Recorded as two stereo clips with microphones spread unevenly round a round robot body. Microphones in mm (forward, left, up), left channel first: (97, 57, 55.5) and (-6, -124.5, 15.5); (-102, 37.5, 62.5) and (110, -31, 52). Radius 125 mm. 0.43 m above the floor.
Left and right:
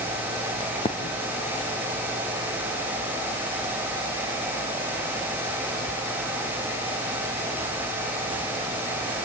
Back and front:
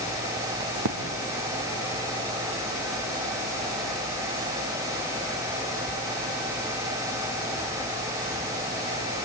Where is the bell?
No bell in this recording.